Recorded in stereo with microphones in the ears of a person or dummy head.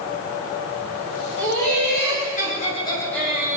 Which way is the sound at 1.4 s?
55° left (ahead or behind).